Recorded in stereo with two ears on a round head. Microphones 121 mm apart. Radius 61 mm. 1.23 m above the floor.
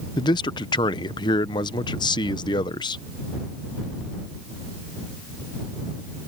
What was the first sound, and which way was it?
A man speaking, 35° left (ahead or behind).